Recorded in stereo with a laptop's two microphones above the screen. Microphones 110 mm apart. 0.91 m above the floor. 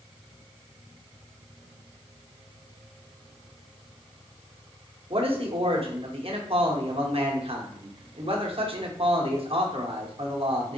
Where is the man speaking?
60° right (ahead or behind), 0.7 m.